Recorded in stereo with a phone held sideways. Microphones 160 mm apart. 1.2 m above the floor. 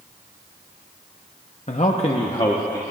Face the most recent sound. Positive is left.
turn(degrees=25)  # may be behind; listen again after turning